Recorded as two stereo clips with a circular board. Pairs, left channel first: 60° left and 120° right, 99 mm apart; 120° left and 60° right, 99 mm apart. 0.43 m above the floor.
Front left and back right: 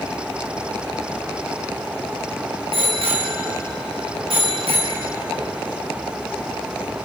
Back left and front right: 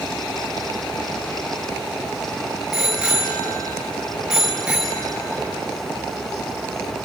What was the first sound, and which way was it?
A bicycle bell, 140° right.